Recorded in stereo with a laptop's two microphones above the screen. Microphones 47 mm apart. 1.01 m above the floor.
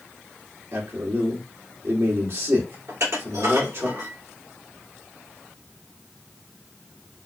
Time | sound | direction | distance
0.7 | a man speaking | 70° right (ahead or behind) | 2.5 m
2.9 | dishes clattering | 80° right | 2.5 m